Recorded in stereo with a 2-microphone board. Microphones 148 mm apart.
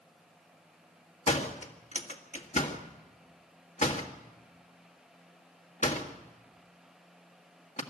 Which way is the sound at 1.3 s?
55° left (ahead or behind).